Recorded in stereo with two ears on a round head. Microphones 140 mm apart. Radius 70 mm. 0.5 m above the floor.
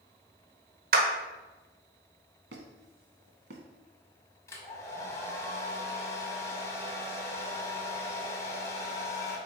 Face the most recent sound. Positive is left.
turn(degrees=20)  # may be behind; listen again after turning